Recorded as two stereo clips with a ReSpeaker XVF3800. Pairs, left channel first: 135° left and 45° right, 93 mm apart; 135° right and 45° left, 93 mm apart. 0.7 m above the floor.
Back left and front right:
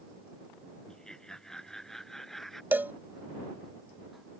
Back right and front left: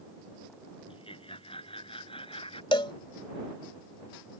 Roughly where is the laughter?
Behind right.